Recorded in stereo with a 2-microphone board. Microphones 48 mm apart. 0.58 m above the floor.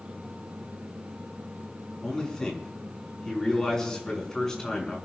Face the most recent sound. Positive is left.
turn(degrees=15)  # may be behind; listen again after turning